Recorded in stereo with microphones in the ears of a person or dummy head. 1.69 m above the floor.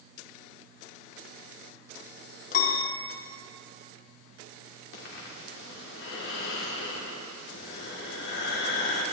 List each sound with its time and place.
2.5 s a piano: 45° left (ahead or behind), 1.5 m
4.9 s breathing: 60° left (ahead or behind), 2.5 m